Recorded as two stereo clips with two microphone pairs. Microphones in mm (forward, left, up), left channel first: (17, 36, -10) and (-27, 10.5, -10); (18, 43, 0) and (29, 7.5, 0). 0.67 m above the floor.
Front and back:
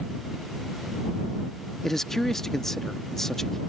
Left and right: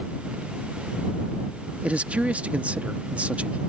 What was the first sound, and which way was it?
A man speaking, 45° right.